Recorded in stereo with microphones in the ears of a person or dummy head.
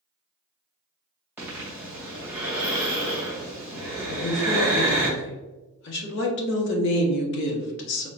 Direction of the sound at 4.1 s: 65° left (ahead or behind).